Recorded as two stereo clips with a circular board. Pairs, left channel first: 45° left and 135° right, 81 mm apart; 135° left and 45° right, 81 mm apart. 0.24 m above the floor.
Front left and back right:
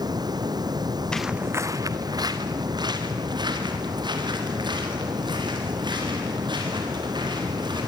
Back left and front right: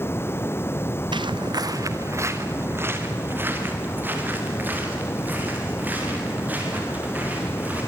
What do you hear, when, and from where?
0.0 s running water: 165° right, 1.0 m
1.1 s footsteps: 35° right, 0.6 m; by 7.8 s 115° right, 10 m